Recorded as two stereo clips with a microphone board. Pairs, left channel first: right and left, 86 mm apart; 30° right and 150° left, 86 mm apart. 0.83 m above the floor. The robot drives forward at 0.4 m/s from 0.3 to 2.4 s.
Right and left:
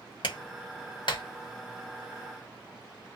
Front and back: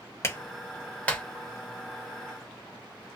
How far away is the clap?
About 1.1 m.